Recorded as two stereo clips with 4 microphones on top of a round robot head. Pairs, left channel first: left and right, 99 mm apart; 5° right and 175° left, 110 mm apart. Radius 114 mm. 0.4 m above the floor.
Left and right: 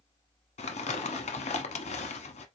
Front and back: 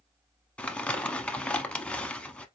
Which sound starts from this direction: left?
Crumpling, at 0.6 s.